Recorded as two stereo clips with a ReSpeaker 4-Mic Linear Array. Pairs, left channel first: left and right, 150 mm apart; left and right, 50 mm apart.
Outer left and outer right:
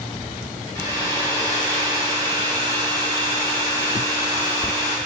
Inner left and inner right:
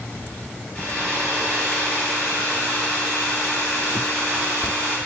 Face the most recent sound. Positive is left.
turn(degrees=25)  # may be behind; listen again after turning